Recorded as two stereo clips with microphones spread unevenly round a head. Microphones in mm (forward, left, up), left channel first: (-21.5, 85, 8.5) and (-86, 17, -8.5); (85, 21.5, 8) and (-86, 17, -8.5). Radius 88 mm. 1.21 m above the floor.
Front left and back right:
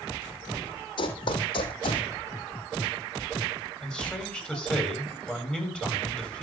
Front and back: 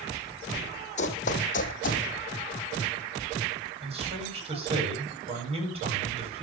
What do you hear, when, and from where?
1.0 s running footsteps: 40° left, 3 m; by 2.0 s 30° left, 3 m
3.8 s a man speaking: 125° left, 8.5 m